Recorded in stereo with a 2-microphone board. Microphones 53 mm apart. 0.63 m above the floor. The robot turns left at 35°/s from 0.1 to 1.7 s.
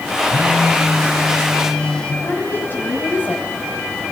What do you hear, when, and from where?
0.3 s a phone buzzing: 145° right, 4.5 m; by 2.1 s 165° left, 4.5 m
2.2 s a woman speaking: 35° left (ahead or behind), 5 m